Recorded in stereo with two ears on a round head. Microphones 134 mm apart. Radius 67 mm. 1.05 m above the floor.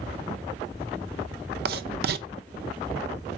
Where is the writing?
70° right (ahead or behind), 0.7 m.